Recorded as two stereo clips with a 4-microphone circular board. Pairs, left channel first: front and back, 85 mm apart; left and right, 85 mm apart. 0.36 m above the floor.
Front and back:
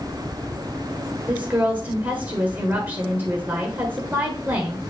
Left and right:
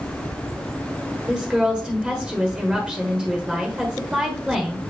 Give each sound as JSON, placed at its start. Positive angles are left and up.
{"t": 1.3, "sound": "a woman speaking", "azimuth_deg": -150, "distance_m": 1.5}